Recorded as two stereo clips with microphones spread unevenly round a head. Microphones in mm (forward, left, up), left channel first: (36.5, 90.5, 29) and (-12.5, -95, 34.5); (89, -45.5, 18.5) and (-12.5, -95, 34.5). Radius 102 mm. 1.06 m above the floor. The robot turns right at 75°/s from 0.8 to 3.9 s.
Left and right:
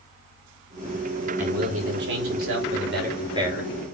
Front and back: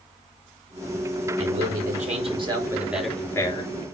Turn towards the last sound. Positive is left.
turn(degrees=0)